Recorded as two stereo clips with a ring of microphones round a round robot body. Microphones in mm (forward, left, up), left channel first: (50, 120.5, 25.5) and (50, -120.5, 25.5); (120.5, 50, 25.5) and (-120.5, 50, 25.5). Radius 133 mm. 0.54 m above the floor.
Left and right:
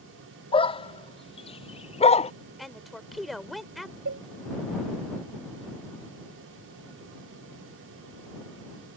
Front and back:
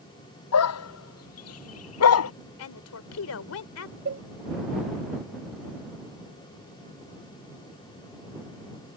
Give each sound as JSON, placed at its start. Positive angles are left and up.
{"t": 0.5, "sound": "a dog barking", "azimuth_deg": 20}
{"t": 2.6, "sound": "a woman speaking", "azimuth_deg": 0}
{"t": 4.0, "sound": "a cowbell", "azimuth_deg": -130}